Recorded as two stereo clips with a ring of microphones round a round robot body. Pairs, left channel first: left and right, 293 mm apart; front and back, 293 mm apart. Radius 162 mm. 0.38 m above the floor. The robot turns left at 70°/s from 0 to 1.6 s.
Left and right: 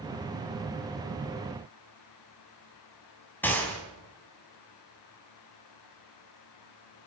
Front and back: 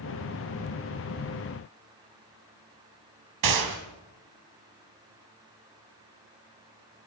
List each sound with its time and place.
3.4 s a gunshot: 175° left, 3 m